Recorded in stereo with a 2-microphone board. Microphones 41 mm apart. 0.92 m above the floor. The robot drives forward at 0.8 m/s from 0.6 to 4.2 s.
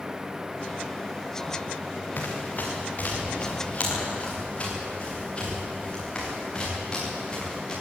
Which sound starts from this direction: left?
Running footsteps, at 2.2 s.